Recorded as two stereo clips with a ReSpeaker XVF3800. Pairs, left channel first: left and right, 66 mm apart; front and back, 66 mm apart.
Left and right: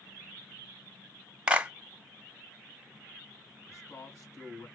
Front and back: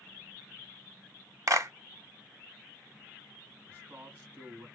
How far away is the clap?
About 1.1 m.